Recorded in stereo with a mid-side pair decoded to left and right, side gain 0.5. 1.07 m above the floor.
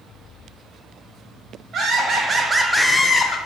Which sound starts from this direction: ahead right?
Laughter, at 1.7 s.